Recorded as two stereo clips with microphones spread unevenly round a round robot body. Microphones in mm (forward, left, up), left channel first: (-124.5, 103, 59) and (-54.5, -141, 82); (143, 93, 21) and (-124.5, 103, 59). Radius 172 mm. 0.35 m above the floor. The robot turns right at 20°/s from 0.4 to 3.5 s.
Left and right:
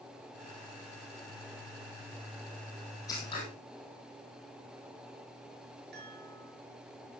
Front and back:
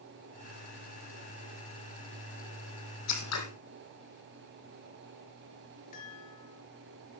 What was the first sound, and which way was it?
Scissors, 25° left.